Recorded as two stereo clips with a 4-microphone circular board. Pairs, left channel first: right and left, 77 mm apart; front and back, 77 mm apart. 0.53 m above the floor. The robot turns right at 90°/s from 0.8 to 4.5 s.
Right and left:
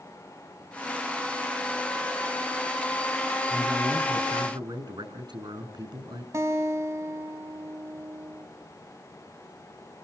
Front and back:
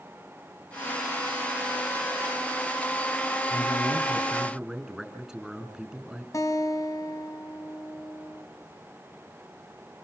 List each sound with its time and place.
3.5 s a man speaking: 5° left, 5.5 m; by 6.2 s 95° left, 5.5 m
6.3 s a guitar: 40° left, 2.5 m